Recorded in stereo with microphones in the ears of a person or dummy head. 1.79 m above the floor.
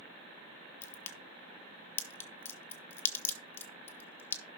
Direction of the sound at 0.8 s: 15° left (ahead or behind).